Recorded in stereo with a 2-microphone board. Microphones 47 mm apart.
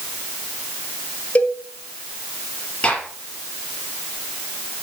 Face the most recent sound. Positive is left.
turn(degrees=25)  # may be behind; listen again after turning